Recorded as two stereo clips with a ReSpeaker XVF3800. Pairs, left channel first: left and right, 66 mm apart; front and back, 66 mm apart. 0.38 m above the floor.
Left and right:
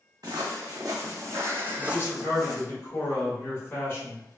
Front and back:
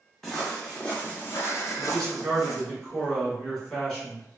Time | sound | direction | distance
0.2 | footsteps | 85° right | 1.2 m
1.8 | a man speaking | 70° left | 1.6 m